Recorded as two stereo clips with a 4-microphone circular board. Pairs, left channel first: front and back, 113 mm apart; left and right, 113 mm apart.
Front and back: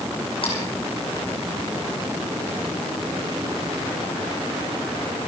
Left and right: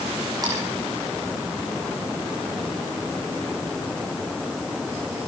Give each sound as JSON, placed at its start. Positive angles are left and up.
{"t": 0.4, "sound": "a splash", "azimuth_deg": -35, "distance_m": 4.0}